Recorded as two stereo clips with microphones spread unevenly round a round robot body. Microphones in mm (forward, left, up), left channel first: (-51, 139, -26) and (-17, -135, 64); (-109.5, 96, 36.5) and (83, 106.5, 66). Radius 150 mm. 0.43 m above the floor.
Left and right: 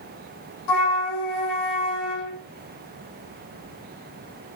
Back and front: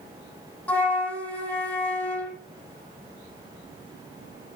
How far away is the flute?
About 5 m.